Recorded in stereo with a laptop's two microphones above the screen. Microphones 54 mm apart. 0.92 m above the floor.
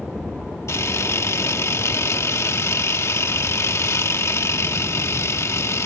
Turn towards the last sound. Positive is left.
turn(degrees=60)  # may be behind; listen again after turning